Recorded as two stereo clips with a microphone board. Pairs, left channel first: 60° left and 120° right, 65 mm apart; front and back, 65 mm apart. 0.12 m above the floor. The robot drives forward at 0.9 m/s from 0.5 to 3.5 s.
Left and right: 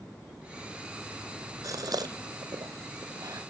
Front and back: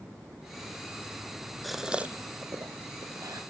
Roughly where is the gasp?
Right.